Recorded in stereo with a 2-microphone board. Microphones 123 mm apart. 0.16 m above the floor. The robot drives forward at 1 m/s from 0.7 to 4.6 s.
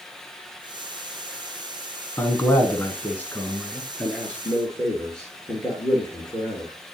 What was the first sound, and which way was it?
A man speaking, 20° left (ahead or behind).